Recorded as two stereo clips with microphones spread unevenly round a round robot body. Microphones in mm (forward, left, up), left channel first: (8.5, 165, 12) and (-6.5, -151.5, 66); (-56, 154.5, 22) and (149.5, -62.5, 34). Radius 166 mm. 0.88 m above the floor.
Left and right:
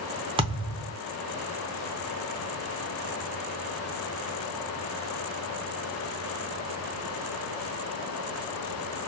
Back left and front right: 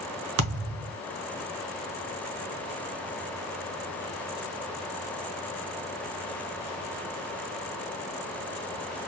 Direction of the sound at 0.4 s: 30° right.